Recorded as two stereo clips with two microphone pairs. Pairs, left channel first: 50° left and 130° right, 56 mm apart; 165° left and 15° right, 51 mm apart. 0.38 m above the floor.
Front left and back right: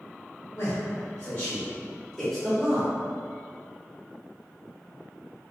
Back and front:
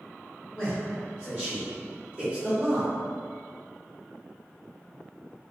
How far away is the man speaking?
About 1.5 m.